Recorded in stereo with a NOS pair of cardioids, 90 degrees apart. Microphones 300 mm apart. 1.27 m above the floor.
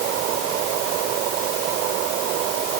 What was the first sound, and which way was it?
Only background noise.